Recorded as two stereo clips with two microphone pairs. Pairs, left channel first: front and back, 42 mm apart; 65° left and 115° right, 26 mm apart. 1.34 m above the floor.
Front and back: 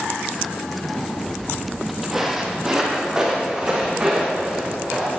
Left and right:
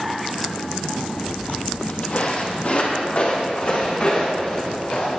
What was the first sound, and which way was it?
Footsteps, 75° left.